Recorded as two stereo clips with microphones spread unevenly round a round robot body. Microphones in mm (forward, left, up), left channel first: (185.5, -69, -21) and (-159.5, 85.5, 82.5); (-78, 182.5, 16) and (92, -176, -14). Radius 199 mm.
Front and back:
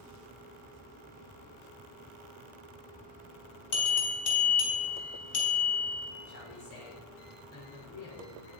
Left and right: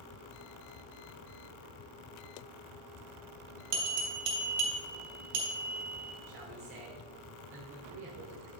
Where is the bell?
45° right, 3 m.